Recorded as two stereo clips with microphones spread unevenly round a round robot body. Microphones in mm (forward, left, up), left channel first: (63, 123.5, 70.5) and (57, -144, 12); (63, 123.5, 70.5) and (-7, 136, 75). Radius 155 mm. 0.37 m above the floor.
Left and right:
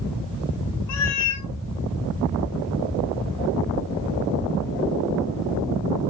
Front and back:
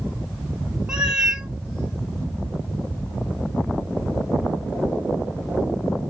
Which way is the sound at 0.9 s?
90° left.